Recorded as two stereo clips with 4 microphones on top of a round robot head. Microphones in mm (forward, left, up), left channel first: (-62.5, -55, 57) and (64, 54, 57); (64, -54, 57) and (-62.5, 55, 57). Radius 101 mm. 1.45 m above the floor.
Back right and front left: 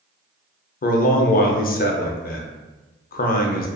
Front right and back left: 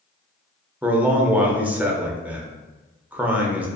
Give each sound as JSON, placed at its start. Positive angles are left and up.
{"t": 0.8, "sound": "a man speaking", "azimuth_deg": -140, "distance_m": 0.5}